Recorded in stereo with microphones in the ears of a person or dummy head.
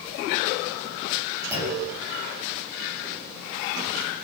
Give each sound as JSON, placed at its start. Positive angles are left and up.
{"t": 1.5, "sound": "a clunk", "side_deg": -15, "distance_m": 9.0}